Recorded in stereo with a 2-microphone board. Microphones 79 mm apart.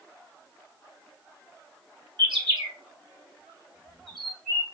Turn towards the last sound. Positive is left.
turn(degrees=-90)